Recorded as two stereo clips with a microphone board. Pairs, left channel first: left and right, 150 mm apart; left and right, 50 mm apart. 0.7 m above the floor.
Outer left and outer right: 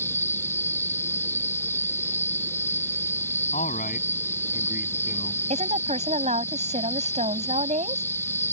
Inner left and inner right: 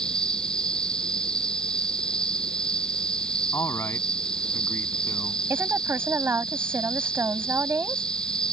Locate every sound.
0.0 s an insect: 15° left (ahead or behind)
3.5 s a man speaking: 70° left (ahead or behind)
5.5 s a woman speaking: 55° right (ahead or behind)